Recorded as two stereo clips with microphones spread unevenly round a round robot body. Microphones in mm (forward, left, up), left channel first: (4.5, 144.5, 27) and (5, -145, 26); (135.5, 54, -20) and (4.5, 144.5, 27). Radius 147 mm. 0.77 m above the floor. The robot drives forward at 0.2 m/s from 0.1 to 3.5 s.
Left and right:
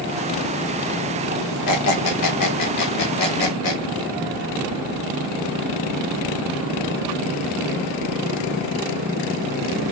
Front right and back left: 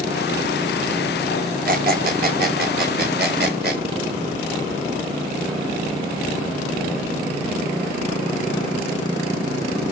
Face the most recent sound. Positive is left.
turn(degrees=130)